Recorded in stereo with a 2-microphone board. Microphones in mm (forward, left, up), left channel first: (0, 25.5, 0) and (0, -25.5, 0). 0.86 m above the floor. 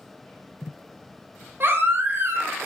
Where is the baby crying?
45° right (ahead or behind), 0.7 m.